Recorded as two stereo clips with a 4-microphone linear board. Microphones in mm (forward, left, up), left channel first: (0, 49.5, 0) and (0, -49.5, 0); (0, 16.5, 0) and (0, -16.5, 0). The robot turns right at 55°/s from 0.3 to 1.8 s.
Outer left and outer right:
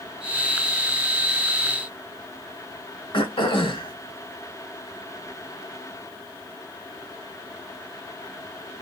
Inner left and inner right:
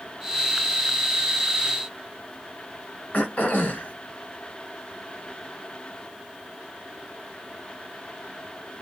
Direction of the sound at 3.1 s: 55° left (ahead or behind).